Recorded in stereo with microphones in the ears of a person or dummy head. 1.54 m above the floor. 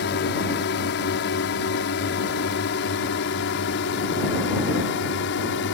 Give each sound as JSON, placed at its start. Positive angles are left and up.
{"t": 0.0, "sound": "a drone", "side_deg": 55}